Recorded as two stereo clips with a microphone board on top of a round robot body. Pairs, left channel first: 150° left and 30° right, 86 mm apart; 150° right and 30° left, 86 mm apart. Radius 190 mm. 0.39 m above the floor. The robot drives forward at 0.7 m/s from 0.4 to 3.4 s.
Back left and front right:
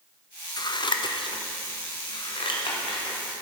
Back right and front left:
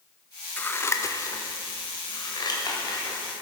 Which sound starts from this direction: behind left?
Scissors, at 0.6 s.